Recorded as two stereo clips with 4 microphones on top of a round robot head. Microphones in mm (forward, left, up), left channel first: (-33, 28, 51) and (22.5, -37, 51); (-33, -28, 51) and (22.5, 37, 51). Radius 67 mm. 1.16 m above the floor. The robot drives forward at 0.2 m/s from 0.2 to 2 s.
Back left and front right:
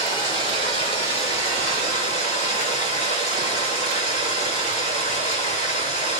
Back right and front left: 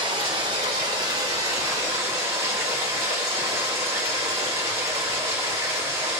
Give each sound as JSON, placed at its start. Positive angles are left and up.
{"t": 0.0, "sound": "running water", "azimuth_deg": 90, "distance_m": 1.0}